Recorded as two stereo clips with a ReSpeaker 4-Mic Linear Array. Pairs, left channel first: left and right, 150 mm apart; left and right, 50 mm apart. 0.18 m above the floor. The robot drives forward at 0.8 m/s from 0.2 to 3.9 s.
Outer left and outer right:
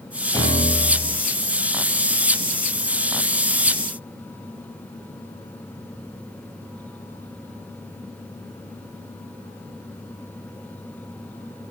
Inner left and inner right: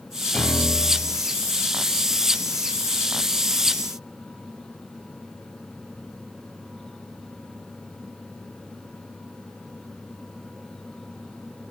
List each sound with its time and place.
0.3 s a piano: 25° left (ahead or behind), 2 m; by 1.2 s 20° left (ahead or behind), 2.5 m